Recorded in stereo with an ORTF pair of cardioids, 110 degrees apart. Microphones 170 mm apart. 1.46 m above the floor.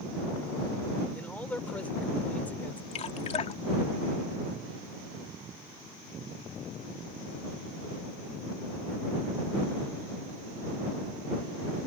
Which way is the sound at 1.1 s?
10° left.